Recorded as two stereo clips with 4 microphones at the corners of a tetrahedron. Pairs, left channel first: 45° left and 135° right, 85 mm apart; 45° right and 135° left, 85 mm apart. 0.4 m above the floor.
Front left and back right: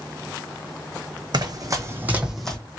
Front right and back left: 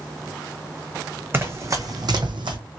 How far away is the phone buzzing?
I don't hear a phone buzzing.